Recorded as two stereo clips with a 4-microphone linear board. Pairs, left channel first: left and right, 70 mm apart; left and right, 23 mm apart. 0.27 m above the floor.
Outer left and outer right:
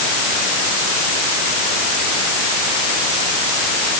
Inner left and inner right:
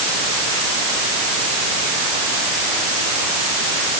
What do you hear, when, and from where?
Only background noise.